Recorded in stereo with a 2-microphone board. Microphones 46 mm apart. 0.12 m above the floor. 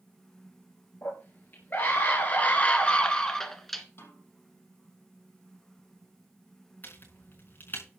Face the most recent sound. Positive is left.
turn(degrees=45)  # may be behind; listen again after turning